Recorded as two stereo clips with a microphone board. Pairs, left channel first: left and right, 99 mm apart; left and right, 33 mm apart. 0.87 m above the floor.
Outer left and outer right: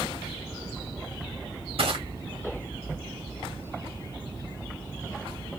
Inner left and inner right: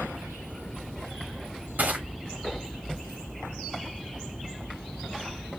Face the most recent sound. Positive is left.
turn(degrees=-75)  # may be behind; listen again after turning